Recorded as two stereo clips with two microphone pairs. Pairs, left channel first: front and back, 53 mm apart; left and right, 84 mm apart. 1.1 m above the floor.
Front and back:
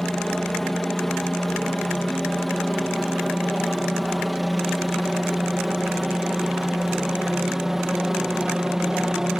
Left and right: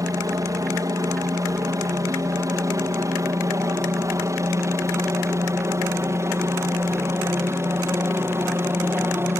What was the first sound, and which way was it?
A helicopter, 80° right.